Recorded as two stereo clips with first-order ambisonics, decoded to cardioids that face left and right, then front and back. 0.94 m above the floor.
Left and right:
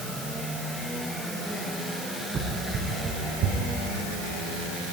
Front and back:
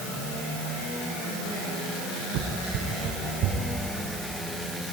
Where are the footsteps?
150° right, 4 m; by 3.6 s 130° right, 4.5 m.